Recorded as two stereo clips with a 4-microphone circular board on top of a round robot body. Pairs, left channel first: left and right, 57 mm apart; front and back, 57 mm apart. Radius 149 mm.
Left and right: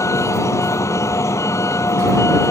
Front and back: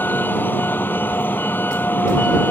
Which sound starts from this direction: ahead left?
A vehicle, at 0.0 s.